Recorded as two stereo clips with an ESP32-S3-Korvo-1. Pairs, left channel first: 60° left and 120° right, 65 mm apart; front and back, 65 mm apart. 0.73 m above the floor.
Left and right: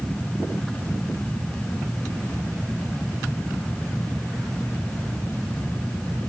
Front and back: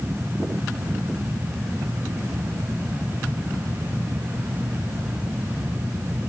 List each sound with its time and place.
Only background noise.